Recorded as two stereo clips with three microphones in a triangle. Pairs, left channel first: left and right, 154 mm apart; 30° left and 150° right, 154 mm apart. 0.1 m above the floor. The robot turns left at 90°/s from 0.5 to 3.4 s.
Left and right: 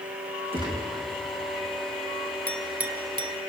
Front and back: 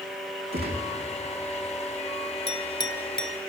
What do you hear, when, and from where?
0.5 s a gunshot: 145° right, 3 m; by 0.9 s 175° right, 3 m
2.5 s a clink: 15° left, 1.0 m; by 3.4 s 65° right, 1.0 m